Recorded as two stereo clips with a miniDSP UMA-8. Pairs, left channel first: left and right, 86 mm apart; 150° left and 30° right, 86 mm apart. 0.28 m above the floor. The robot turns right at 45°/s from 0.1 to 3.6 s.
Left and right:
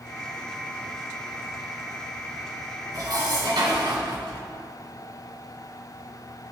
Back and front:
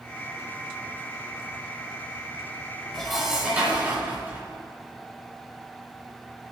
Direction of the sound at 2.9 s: 125° right.